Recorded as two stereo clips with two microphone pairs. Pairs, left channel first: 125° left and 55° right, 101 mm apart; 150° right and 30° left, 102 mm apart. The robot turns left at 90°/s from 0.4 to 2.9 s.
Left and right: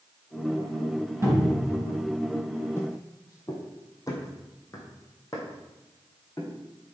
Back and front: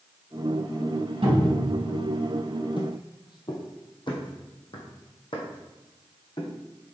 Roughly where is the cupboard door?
Ahead.